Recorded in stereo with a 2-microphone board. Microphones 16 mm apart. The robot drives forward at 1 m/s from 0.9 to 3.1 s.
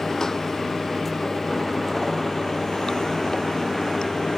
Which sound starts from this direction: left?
Running water, at 0.0 s.